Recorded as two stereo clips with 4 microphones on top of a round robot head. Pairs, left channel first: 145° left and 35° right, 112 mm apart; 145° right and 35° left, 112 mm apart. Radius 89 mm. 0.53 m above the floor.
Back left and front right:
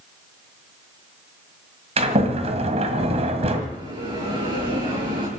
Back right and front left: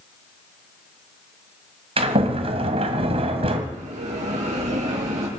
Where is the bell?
15° left, 7 m.